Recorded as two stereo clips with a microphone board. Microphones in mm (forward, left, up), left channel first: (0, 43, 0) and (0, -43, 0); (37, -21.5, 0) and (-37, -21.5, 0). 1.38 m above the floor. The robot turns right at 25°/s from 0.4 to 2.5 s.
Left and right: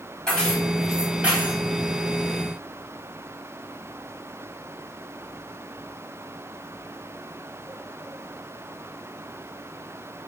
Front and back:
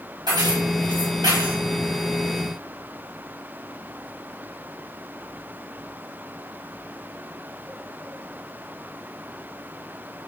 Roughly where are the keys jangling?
Behind.